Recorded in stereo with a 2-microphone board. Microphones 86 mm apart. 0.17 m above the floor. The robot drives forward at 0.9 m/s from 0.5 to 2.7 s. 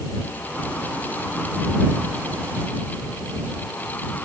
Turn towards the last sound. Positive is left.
No sound to turn to.